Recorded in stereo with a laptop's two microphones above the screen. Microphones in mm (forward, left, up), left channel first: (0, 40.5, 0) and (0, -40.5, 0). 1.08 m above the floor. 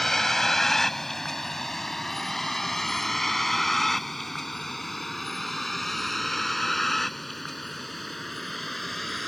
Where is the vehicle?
5° left (ahead or behind); by 9.3 s centre (ahead or behind).